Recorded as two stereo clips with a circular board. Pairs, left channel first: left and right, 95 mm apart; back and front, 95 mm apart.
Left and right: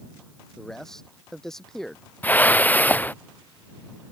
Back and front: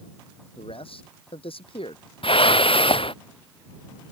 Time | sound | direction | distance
0.6 | a man speaking | 175° left | ?
2.2 | a whoosh | 160° left | ?